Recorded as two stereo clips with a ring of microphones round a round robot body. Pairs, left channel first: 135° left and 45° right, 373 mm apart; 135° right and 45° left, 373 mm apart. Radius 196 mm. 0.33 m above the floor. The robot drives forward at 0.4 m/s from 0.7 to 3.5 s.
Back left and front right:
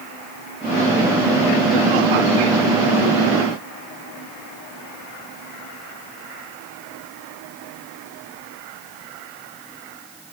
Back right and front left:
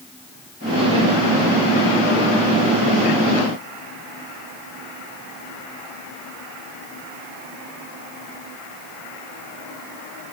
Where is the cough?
No cough in this recording.